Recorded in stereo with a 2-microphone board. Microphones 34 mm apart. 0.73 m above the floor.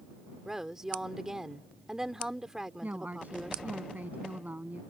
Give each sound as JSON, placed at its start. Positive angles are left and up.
{"t": 0.5, "sound": "a woman speaking", "side_deg": -15}
{"t": 2.8, "sound": "a woman speaking", "side_deg": -60}